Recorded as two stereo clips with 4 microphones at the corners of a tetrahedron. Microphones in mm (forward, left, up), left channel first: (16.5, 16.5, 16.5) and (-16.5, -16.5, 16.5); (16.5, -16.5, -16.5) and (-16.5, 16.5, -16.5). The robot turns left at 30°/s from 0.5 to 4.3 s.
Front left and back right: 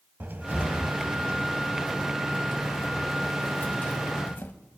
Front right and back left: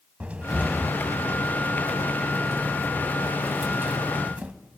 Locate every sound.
0.2 s a cupboard door: 170° right, 1.0 m; by 4.5 s 80° left, 1.0 m